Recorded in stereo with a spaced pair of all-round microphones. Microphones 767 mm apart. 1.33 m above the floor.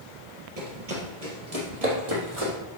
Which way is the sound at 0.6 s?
50° right (ahead or behind).